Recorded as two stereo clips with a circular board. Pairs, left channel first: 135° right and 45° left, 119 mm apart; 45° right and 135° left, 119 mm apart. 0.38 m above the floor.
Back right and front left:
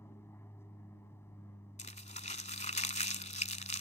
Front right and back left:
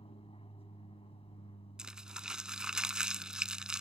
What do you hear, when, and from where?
0.0 s an aircraft: 70° right
1.8 s crumpling: 140° right